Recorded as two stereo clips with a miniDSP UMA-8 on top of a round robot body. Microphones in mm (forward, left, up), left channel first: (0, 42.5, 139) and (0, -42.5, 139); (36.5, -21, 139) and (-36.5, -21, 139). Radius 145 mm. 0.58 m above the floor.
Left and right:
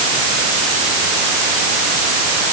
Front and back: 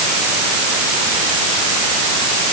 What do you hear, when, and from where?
Only background noise.